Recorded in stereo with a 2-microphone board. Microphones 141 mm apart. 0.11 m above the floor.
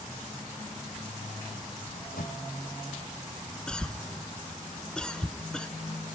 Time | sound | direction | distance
1.9 | a microwave | 75° left (ahead or behind) | 3.5 m
3.7 | a cough | 5° left (ahead or behind) | 1.2 m